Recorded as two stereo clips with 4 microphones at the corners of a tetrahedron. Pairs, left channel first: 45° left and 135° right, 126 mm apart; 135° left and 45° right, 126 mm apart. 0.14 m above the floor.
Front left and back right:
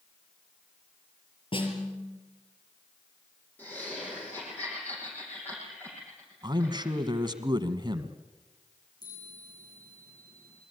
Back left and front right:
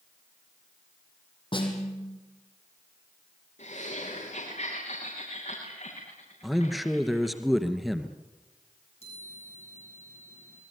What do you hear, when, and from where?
1.5 s a snare drum: 90° left, 4.5 m
3.6 s laughter: 120° left, 8 m
6.4 s a man speaking: 135° right, 1.8 m
9.0 s a chime: 100° left, 8 m